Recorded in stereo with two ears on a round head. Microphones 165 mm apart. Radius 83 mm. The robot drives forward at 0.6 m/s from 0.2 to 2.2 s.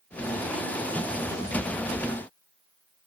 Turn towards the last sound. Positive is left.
No sound to turn to.